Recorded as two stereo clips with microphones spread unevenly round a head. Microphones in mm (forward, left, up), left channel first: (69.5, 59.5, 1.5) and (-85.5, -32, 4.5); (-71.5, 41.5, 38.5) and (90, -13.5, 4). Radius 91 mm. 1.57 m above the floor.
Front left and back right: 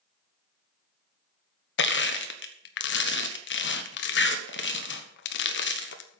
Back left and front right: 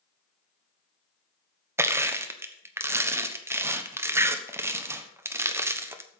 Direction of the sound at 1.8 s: 55° left.